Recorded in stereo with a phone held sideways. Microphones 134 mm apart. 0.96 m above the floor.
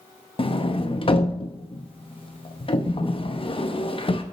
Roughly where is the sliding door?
Left.